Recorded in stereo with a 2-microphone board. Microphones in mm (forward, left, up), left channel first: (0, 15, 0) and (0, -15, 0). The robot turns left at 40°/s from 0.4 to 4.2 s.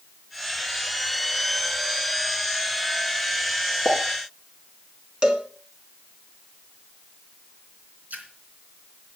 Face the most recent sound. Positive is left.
turn(degrees=-65)  # may be behind; listen again after turning